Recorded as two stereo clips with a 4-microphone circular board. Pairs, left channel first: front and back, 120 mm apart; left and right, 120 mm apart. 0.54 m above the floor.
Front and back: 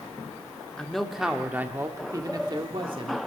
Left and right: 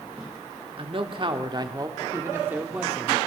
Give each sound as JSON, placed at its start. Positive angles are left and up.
{"t": 0.8, "sound": "a man speaking", "azimuth_deg": -85, "distance_m": 1.4}